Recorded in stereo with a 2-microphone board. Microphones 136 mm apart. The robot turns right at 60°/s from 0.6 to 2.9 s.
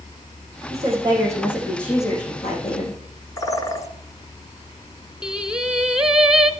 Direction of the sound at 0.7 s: 60° right.